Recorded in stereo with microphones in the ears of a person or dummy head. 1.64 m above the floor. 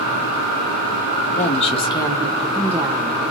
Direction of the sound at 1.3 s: 40° left (ahead or behind).